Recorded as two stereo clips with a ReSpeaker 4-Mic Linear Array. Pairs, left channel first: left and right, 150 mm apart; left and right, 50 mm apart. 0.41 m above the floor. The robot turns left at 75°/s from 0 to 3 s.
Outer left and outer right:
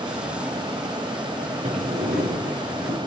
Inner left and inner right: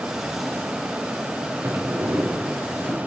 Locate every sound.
1.6 s a sliding door: 50° right, 7 m; by 3.0 s 150° right, 7 m